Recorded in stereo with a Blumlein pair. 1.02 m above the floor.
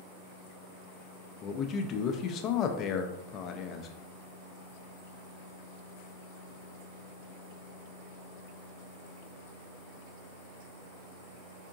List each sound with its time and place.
1.4 s a man speaking: 30° left, 0.6 m